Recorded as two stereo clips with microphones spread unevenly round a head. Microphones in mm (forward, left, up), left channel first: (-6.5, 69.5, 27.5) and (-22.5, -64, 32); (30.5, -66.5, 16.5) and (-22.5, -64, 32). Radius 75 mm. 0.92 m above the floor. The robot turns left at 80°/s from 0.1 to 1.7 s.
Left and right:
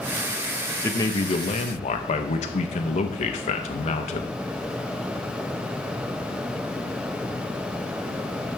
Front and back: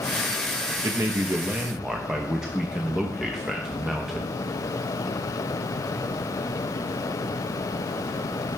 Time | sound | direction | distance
0.8 | a man speaking | 150° left | 0.8 m